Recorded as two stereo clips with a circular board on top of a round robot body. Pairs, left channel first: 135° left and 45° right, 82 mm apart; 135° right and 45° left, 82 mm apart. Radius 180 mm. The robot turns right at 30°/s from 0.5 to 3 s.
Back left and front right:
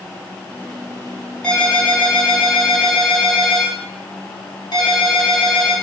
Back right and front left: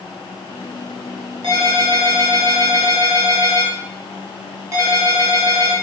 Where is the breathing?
No breathing in this recording.